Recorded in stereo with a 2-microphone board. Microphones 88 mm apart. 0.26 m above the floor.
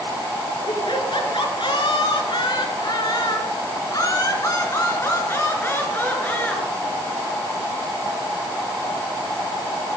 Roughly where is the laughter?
Left.